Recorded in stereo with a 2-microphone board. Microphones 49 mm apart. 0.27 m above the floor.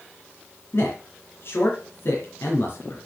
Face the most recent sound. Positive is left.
turn(degrees=55)  # may be behind; listen again after turning